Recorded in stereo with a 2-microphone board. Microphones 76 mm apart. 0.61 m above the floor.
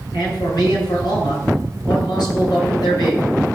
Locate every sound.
0.1 s a man speaking: 70° left (ahead or behind), 7 m